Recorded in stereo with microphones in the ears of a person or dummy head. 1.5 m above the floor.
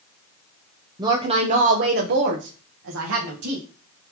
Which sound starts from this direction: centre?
A woman speaking, at 1.0 s.